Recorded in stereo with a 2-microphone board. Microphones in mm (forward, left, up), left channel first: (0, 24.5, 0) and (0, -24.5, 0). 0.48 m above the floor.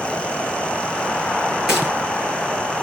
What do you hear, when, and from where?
1.7 s a gunshot: 10° right (ahead or behind), 7.5 m